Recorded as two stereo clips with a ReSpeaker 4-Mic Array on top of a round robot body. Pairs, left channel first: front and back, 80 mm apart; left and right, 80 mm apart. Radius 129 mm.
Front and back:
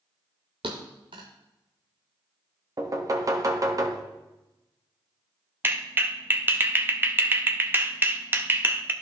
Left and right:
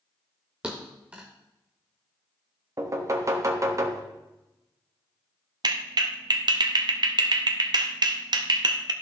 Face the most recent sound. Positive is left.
turn(degrees=-115)